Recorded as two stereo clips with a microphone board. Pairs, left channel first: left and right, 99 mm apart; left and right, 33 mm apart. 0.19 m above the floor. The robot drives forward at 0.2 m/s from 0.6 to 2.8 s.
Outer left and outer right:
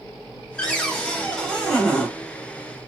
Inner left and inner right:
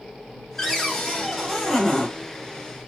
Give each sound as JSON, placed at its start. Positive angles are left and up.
{"t": 0.6, "sound": "a cupboard door", "side_deg": 5, "distance_m": 1.1}